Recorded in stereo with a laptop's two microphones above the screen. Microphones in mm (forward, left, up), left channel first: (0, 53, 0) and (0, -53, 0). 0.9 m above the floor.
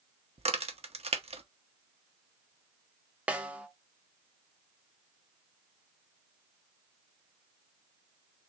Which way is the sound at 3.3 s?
10° right (ahead or behind).